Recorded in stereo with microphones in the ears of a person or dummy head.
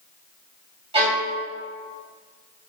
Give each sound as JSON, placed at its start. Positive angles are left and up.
{"t": 0.9, "sound": "a violin", "side_deg": -30, "distance_m": 2.5}